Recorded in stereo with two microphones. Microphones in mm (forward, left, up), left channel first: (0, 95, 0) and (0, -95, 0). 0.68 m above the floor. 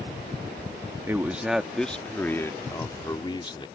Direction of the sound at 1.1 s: 15° right (ahead or behind).